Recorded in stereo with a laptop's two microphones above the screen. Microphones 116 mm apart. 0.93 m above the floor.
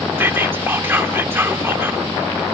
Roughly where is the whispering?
Centre.